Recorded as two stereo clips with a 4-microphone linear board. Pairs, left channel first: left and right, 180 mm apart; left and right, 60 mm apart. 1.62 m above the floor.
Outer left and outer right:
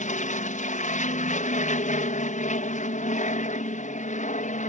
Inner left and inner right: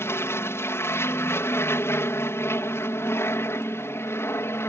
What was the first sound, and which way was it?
An aircraft, 50° left (ahead or behind).